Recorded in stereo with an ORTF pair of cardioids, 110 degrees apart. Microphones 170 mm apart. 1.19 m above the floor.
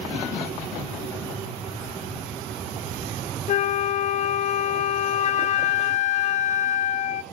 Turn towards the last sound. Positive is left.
turn(degrees=45)